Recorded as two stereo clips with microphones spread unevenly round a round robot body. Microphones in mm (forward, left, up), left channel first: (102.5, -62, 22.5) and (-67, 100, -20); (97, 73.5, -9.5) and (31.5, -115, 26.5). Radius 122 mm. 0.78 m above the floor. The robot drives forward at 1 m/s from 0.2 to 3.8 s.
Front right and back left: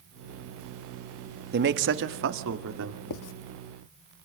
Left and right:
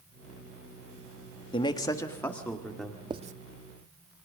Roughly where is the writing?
Ahead right.